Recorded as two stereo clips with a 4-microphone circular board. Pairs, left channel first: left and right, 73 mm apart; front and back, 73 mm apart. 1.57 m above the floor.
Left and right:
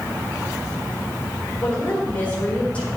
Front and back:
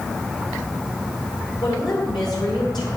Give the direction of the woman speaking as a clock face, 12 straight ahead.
11 o'clock.